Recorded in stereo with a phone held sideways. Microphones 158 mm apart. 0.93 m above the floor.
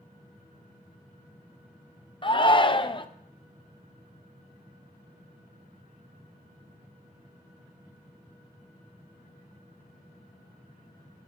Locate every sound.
2.2 s a shout: 30° left (ahead or behind), 0.5 m